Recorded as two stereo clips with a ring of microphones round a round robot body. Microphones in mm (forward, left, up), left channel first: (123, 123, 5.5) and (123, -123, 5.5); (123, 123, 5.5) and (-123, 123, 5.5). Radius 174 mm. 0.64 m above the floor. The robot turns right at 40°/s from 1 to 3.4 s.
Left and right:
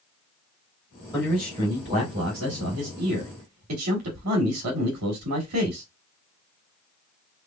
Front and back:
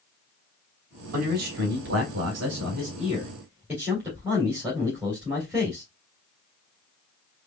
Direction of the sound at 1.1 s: 175° left.